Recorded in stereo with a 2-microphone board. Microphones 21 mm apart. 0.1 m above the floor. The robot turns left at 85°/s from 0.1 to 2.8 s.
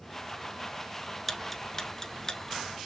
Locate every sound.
1.3 s ticking: centre (ahead or behind), 0.7 m; by 2.8 s 20° left (ahead or behind), 0.7 m